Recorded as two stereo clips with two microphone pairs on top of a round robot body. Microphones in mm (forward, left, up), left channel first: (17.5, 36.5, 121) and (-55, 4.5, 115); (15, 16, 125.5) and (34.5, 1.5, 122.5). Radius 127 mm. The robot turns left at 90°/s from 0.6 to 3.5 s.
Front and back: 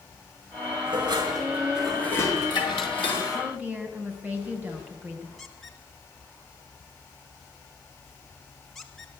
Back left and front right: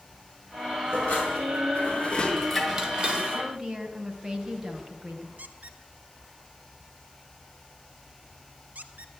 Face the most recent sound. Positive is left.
turn(degrees=-60)